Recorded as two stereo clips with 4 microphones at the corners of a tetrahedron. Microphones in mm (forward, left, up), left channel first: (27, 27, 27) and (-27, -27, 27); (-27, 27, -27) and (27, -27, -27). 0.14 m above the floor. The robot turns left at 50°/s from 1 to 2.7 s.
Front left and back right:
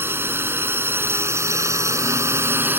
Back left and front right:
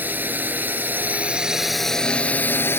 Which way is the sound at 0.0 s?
95° right.